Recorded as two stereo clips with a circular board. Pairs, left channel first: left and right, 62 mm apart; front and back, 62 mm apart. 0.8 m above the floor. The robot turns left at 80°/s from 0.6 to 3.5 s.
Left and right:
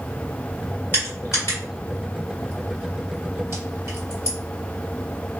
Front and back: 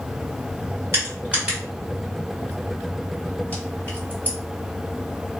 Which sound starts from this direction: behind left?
Crushing, at 0.9 s.